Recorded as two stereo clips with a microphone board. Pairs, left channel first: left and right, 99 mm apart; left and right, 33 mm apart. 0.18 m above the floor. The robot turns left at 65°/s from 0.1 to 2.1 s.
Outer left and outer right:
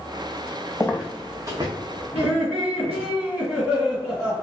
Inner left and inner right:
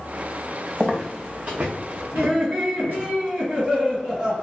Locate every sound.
0.8 s footsteps: 30° left (ahead or behind), 0.6 m; by 3.1 s 85° right, 1.6 m
2.1 s laughter: 10° right (ahead or behind), 1.7 m